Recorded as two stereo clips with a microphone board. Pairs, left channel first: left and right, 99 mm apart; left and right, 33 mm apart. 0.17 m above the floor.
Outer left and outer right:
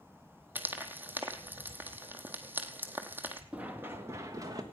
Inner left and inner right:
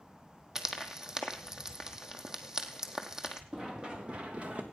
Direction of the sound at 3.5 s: 15° right (ahead or behind).